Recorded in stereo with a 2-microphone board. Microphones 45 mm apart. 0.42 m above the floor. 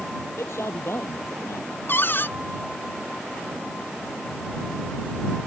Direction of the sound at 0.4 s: 70° left (ahead or behind).